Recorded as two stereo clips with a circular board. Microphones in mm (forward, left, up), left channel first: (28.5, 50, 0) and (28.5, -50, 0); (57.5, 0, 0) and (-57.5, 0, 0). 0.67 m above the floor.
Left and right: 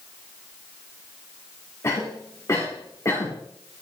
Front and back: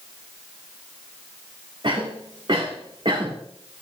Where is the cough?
145° left, 1.8 m.